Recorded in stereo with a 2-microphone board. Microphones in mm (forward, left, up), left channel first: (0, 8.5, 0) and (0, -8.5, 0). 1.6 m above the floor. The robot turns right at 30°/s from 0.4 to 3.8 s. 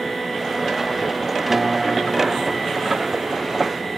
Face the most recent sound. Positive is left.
turn(degrees=-115)